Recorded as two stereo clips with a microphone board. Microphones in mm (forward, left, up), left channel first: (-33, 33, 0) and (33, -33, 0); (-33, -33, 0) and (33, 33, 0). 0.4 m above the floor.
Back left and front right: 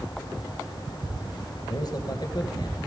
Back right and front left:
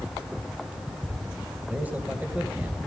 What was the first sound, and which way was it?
A man speaking, 115° left.